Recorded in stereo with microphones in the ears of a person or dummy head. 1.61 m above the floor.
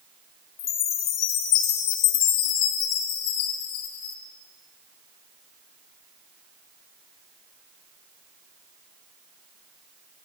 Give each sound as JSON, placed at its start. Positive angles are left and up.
{"t": 0.6, "sound": "a chime", "side_deg": 25, "distance_m": 0.9}